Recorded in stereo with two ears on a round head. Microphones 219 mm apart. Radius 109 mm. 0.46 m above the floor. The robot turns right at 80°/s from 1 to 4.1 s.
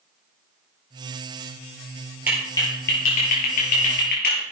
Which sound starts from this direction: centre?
A clap, at 2.3 s.